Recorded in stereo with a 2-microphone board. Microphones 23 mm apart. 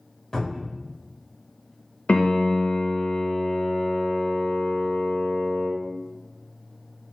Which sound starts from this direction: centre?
A cupboard door, at 0.3 s.